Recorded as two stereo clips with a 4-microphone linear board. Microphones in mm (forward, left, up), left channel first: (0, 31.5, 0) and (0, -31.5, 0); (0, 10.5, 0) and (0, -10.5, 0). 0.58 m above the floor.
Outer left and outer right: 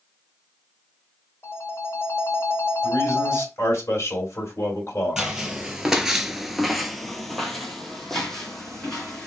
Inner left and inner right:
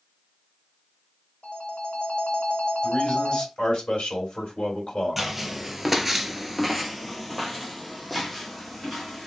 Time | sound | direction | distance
1.4 | a phone ringing | 45° left (ahead or behind) | 0.9 m
2.8 | a man speaking | 50° left (ahead or behind) | 2.0 m
5.2 | footsteps | 10° right (ahead or behind) | 0.8 m